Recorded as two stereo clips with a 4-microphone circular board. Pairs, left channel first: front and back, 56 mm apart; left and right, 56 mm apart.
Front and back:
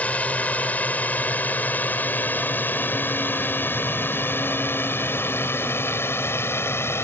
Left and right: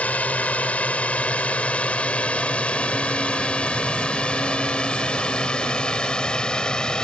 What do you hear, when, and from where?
0.0 s a drone: 45° left; by 7.0 s 20° left